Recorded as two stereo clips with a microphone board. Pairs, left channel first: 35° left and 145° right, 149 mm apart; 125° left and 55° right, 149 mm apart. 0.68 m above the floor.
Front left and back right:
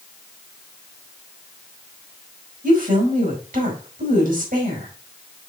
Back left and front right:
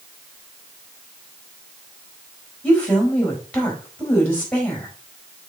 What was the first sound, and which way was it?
A woman speaking, 155° right.